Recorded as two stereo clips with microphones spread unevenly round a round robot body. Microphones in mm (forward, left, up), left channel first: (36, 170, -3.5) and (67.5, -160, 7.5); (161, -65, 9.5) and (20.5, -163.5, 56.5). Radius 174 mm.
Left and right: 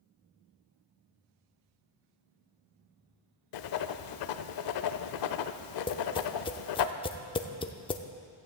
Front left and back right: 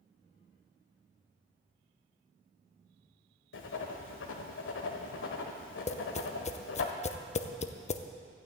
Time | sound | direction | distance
3.5 | writing | 65° left | 0.6 m
5.9 | tapping | 25° left | 0.5 m